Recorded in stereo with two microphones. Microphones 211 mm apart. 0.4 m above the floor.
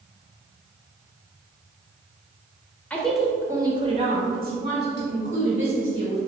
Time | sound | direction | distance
2.9 | a woman speaking | 5° left (ahead or behind) | 0.9 m